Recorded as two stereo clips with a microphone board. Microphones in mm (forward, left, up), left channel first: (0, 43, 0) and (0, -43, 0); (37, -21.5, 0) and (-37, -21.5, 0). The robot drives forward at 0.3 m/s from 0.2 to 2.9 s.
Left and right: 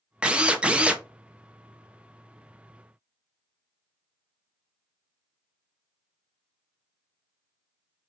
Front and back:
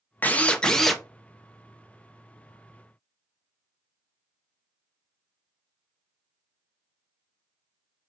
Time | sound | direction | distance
0.2 | a drill | 25° right | 0.6 m